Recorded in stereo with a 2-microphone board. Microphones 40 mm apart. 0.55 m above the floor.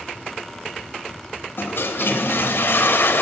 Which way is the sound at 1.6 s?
65° left (ahead or behind).